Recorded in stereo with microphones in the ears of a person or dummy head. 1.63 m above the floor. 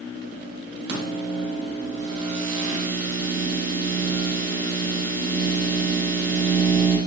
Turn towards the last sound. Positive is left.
turn(degrees=-55)  # may be behind; listen again after turning